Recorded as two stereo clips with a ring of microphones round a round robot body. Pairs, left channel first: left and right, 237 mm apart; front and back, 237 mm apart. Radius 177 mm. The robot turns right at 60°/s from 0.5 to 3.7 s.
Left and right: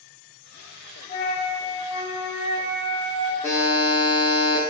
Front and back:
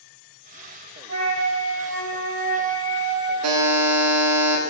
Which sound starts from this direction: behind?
A buzzer, at 3.4 s.